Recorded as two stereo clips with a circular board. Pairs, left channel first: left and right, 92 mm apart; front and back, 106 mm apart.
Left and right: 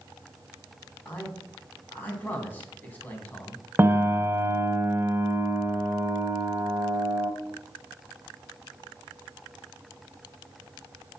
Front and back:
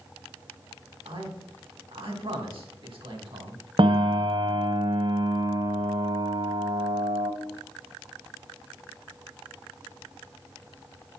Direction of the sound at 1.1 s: 155° left.